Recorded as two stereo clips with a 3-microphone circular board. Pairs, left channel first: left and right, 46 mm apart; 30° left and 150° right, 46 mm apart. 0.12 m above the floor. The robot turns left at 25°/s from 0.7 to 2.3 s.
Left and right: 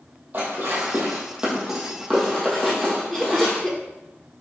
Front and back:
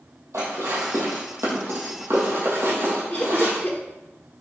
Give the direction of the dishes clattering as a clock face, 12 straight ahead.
5 o'clock.